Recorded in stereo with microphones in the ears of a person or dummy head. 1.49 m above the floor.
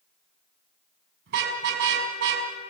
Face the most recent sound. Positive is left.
turn(degrees=-65)  # may be behind; listen again after turning